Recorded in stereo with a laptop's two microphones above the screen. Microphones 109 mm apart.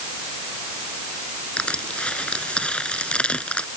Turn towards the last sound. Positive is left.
turn(degrees=10)  # may be behind; listen again after turning